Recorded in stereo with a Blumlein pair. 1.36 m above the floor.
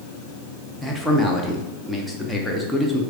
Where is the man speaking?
5° left, 0.8 m.